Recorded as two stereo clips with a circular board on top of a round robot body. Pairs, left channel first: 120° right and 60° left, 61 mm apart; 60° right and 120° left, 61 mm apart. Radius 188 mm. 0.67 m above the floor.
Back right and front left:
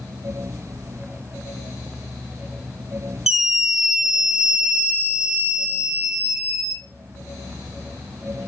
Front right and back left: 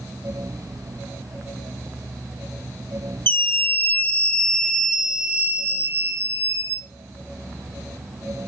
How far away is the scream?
About 1.6 m.